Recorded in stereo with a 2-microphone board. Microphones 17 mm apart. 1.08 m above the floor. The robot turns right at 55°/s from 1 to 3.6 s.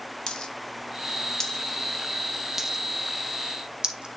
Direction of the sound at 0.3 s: 55° left (ahead or behind).